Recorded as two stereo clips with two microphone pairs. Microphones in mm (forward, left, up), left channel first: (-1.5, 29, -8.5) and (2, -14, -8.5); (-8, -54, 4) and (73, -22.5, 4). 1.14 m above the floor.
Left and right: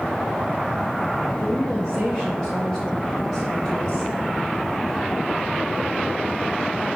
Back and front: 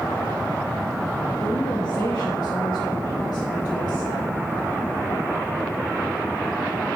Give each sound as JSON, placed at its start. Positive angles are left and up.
{"t": 1.4, "sound": "a woman speaking", "azimuth_deg": 165, "distance_m": 1.5}